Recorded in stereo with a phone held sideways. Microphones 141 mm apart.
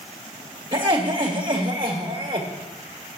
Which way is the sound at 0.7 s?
40° right (ahead or behind).